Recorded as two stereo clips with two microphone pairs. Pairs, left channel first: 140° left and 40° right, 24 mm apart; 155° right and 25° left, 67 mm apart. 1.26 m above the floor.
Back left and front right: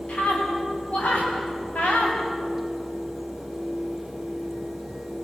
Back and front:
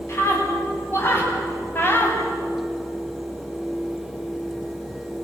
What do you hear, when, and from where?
0.1 s a scream: 155° left, 8.5 m; by 2.2 s 145° left, 6.5 m